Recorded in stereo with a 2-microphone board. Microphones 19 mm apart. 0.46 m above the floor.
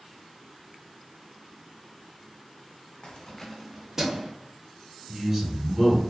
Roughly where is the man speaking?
Right.